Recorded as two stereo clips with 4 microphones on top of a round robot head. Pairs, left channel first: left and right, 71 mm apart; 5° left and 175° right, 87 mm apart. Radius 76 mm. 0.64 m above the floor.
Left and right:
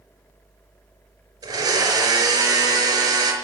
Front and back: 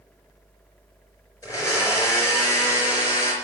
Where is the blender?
55° right, 4.5 m.